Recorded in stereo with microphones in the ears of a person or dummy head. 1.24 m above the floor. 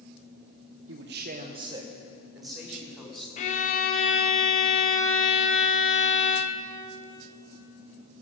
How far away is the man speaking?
About 0.8 m.